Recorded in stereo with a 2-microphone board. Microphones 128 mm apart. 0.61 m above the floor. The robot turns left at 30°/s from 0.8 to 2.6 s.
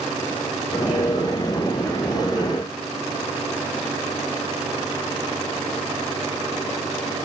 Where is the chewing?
No chewing in this recording.